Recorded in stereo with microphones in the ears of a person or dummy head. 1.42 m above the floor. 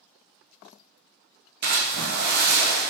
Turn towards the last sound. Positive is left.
turn(degrees=-55)  # may be behind; listen again after turning